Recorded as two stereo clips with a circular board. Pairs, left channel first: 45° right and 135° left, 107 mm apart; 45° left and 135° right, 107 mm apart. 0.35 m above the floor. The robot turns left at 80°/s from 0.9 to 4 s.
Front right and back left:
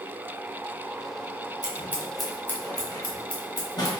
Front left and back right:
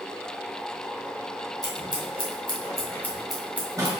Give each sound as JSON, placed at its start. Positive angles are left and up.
{"t": 1.6, "sound": "scissors", "azimuth_deg": 90, "distance_m": 1.2}